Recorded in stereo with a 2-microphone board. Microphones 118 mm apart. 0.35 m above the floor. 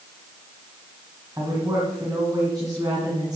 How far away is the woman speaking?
About 2.5 m.